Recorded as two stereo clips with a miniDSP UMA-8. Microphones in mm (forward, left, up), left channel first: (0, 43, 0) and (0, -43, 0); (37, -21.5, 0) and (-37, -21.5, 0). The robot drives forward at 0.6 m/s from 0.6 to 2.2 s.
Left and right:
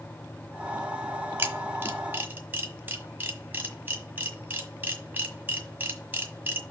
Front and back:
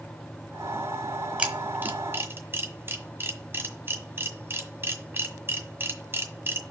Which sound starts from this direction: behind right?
A camera shutter, at 1.4 s.